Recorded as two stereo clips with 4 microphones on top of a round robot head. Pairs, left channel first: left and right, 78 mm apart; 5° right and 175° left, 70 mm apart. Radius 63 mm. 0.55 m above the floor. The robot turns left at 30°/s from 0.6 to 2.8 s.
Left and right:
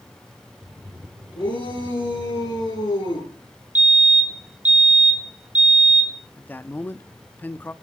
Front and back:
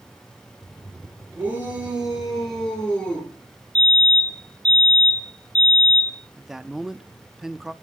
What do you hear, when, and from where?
1.4 s a shout: 115° left, 9 m; by 3.3 s 70° left, 9 m
3.8 s a fire alarm: 50° right, 2 m
6.4 s a man speaking: 100° left, 0.7 m